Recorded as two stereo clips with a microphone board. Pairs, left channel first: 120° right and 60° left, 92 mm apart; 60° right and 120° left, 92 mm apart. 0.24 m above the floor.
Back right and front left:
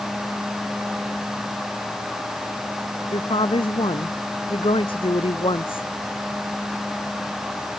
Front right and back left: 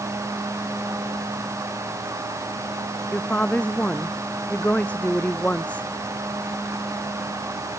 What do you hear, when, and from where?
3.1 s a woman speaking: 135° right